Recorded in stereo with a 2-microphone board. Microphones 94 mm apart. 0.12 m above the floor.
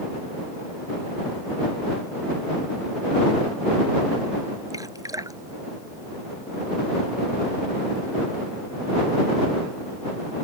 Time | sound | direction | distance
4.7 | dripping | 40° right (ahead or behind) | ?